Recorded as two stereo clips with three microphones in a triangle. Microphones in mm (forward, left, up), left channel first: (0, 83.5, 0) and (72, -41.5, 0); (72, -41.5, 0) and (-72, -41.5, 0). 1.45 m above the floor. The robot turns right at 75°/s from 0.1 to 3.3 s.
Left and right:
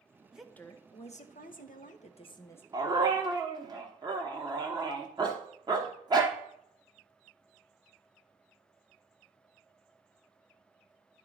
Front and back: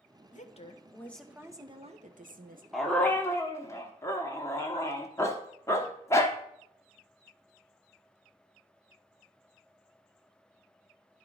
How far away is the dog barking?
About 1.1 m.